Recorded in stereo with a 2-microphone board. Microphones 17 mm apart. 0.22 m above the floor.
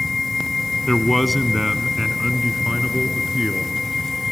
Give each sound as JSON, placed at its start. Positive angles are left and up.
{"t": 0.9, "sound": "a man speaking", "side_deg": 15, "distance_m": 1.5}